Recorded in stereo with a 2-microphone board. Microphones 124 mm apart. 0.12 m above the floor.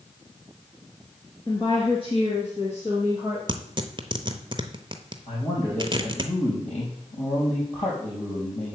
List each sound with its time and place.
1.5 s a woman speaking: 40° left (ahead or behind), 1.8 m; by 3.4 s 55° left (ahead or behind), 3 m
3.5 s tearing paper: 40° right (ahead or behind), 0.7 m
5.3 s a man speaking: 70° left (ahead or behind), 3.5 m